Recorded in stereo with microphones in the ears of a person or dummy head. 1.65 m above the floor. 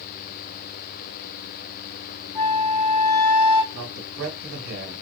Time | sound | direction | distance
2.4 | a flute | 5° left (ahead or behind) | 1.2 m
3.7 | a man speaking | 85° right | 1.6 m